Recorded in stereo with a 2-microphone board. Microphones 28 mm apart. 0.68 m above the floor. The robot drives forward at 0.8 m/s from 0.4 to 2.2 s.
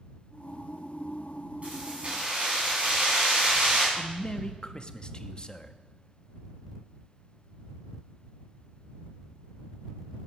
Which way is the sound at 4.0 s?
30° left (ahead or behind).